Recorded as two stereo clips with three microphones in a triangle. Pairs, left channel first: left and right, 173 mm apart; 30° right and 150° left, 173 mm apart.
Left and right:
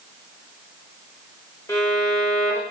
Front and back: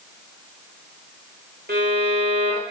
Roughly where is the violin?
Behind.